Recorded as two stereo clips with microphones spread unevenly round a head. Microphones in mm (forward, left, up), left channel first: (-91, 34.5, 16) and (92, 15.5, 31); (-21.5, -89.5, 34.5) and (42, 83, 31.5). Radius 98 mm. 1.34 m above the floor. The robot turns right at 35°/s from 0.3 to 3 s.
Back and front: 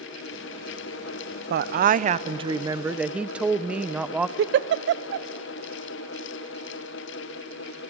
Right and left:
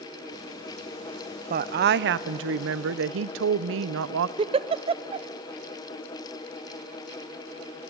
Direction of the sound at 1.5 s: 25° left.